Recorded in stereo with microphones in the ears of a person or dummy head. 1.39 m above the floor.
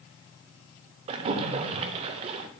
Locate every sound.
1.1 s a splash: 35° right (ahead or behind), 0.6 m